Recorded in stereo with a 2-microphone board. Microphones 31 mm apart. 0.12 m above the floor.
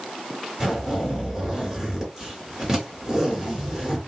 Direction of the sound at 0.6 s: 20° right (ahead or behind).